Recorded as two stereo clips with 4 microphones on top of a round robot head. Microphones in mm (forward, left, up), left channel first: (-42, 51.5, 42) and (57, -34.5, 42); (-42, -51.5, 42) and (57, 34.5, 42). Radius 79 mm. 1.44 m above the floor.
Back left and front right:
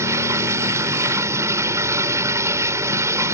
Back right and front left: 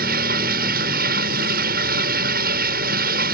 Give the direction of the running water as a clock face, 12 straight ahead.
11 o'clock.